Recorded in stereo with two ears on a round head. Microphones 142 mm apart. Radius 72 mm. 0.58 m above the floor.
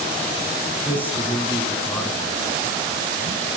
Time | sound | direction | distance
0.8 | a man speaking | 10° left (ahead or behind) | 5 m